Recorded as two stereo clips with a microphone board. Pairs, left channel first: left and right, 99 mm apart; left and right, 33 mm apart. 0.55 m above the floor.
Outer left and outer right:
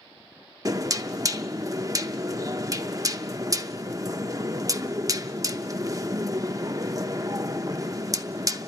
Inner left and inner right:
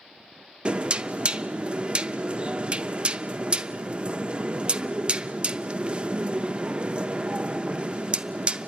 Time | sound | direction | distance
0.7 | knocking | 35° right (ahead or behind) | 0.6 m